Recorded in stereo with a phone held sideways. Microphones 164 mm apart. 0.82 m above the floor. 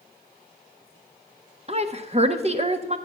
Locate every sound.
1.7 s a woman speaking: 40° right (ahead or behind), 0.9 m